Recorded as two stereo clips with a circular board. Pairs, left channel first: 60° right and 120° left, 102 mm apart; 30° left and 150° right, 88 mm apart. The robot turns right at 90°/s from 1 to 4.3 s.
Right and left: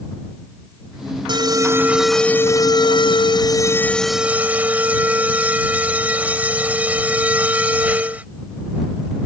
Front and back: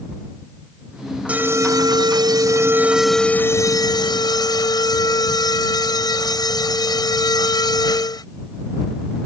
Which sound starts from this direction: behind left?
An alarm, at 1.3 s.